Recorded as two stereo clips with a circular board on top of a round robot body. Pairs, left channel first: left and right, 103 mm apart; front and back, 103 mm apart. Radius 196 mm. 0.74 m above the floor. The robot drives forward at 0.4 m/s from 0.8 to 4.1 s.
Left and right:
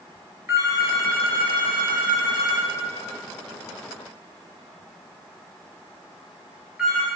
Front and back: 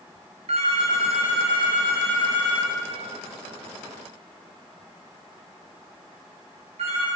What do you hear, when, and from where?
0.5 s a phone ringing: 160° right, 1.3 m; by 7.1 s 170° right, 2.5 m